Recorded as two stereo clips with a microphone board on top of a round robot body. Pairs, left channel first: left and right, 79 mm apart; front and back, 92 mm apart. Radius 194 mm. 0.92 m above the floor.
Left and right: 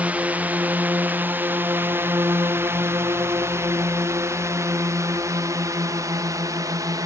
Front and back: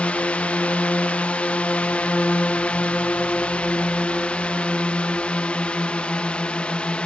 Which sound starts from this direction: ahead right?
A drone, at 0.0 s.